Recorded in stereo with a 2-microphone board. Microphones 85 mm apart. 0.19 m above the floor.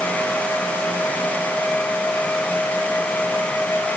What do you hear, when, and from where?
Only background noise.